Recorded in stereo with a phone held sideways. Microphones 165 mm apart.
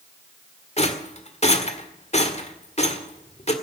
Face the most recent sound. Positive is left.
turn(degrees=45)  # may be behind; listen again after turning